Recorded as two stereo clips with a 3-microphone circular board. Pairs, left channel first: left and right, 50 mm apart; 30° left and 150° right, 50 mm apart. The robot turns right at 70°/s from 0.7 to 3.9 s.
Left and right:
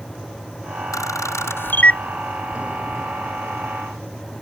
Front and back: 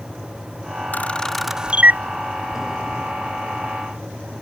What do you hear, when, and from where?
0.9 s a camera shutter: 85° left; by 2.0 s 160° left